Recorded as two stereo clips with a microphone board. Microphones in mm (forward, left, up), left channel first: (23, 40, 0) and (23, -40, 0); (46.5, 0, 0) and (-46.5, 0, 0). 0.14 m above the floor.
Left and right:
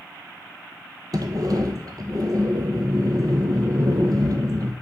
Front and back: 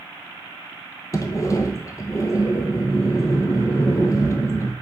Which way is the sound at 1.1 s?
50° right.